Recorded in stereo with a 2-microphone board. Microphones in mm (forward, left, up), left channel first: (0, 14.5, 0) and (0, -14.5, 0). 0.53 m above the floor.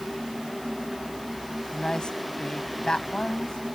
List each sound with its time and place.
1.7 s a woman speaking: 30° left (ahead or behind)